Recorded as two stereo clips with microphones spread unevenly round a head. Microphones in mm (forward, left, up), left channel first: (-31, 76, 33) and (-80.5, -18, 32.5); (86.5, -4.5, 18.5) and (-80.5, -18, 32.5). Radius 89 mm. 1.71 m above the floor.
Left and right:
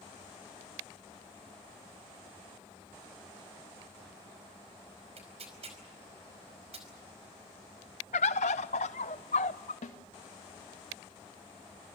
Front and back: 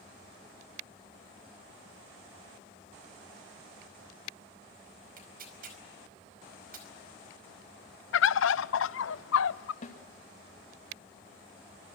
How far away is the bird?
About 0.6 m.